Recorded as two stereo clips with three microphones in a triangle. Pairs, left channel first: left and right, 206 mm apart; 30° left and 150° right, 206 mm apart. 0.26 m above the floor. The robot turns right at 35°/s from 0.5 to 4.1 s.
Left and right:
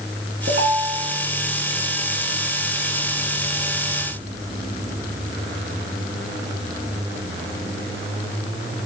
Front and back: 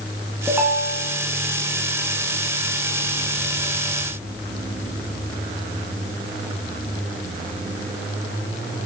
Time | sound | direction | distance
0.5 | a ringtone | 70° right | 1.5 m